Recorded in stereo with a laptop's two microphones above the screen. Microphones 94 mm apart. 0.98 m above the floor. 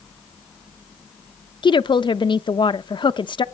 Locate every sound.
1.6 s a woman speaking: 60° left (ahead or behind), 0.7 m